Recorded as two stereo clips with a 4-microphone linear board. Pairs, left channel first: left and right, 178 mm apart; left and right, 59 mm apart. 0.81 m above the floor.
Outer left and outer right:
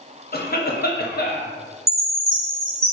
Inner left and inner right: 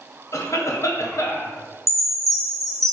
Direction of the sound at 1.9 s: 55° right (ahead or behind).